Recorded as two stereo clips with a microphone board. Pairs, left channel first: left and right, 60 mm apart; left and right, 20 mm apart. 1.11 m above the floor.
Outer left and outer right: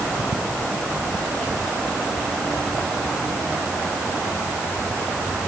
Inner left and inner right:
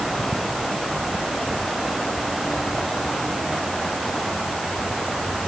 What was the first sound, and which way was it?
Only background noise.